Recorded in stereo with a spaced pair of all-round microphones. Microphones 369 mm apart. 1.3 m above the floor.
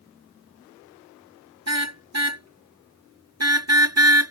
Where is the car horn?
45° right (ahead or behind); by 4.3 s 40° right (ahead or behind).